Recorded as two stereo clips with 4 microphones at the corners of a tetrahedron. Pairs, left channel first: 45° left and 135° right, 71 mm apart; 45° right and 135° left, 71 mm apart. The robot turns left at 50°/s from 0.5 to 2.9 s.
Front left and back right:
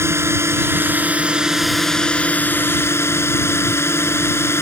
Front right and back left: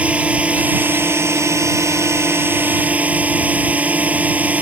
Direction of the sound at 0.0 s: 165° right.